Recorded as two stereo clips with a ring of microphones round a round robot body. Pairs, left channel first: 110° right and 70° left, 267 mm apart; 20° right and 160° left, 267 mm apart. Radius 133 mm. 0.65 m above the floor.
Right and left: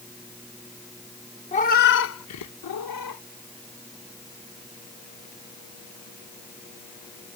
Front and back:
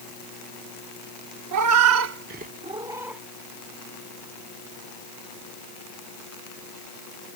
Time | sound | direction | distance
1.5 | a cat meowing | straight behind | ?